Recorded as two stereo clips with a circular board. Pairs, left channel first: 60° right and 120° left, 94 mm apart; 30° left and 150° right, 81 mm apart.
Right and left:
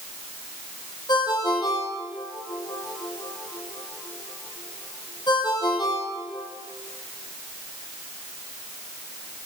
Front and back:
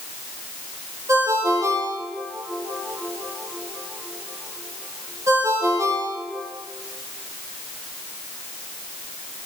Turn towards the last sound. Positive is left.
turn(degrees=-100)